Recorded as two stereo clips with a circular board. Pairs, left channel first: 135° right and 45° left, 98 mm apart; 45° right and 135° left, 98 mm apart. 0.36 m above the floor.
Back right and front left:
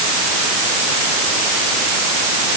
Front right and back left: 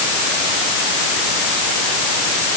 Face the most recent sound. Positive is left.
No sound to turn to.